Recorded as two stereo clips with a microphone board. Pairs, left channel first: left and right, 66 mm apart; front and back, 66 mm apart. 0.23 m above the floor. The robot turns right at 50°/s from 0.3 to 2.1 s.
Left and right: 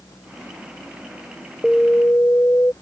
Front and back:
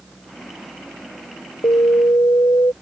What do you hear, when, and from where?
1.6 s an alarm: 10° left; by 2.7 s 35° left